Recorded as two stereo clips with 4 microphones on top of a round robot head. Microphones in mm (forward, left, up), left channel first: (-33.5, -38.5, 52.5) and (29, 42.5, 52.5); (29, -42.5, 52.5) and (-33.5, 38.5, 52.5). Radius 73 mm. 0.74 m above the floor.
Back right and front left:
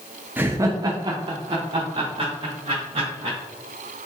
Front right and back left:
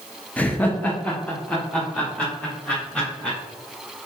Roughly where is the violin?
I don't hear a violin.